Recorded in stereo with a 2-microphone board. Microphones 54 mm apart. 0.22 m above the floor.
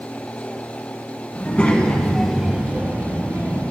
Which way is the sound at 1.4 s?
30° left (ahead or behind).